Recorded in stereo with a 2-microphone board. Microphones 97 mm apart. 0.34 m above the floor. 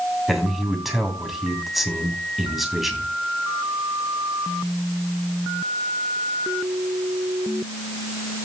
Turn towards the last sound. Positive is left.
turn(degrees=0)  # may be behind; listen again after turning